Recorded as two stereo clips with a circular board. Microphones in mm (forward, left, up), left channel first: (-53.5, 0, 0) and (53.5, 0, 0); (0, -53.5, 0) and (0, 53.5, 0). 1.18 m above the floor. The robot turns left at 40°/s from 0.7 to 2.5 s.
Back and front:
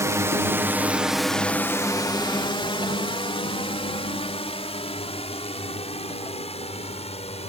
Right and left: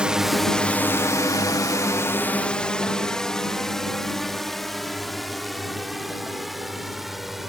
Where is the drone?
20° left; by 7.5 s straight behind.